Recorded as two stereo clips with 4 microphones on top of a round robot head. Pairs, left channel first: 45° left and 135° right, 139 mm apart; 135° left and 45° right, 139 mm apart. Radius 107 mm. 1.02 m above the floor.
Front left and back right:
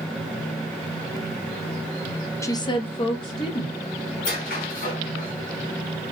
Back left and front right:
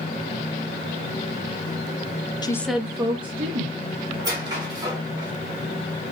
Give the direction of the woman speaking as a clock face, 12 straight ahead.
9 o'clock.